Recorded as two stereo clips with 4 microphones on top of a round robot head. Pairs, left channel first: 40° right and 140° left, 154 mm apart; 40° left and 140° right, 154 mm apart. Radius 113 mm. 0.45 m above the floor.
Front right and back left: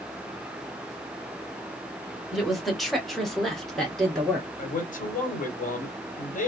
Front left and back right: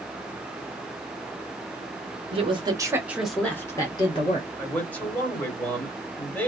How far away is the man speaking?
About 1.6 m.